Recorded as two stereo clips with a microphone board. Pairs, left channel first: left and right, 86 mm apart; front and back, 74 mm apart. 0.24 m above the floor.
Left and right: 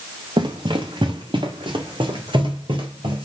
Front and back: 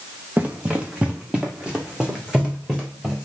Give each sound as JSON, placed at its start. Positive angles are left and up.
{"t": 0.4, "sound": "running footsteps", "azimuth_deg": -110, "distance_m": 1.4}